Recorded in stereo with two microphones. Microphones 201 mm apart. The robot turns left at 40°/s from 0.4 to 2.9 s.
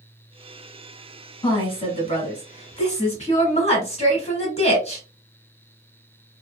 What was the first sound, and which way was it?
A woman speaking, 135° left.